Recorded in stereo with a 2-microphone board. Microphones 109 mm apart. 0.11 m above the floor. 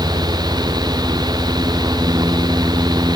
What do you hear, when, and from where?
Only background noise.